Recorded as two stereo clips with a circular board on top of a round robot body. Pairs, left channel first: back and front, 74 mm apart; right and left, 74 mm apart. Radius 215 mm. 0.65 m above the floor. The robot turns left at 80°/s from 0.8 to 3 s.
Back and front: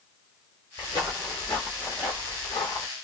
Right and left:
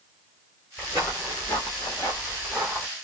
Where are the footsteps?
165° right, 0.7 m; by 2.9 s 165° left, 1.2 m.